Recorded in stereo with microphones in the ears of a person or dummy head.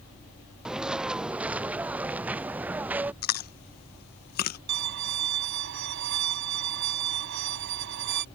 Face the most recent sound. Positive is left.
turn(degrees=-70)  # may be behind; listen again after turning